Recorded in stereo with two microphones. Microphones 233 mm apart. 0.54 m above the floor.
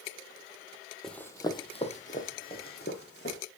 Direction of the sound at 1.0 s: Centre (ahead or behind).